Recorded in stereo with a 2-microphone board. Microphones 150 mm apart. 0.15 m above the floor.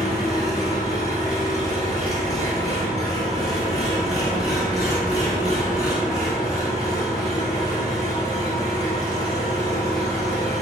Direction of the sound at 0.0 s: 25° left (ahead or behind).